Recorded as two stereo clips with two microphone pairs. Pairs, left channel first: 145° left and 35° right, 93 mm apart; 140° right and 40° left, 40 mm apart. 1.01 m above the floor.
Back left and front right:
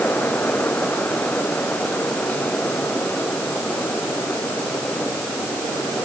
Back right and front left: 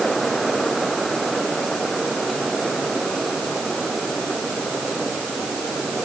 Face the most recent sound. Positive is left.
No sound to turn to.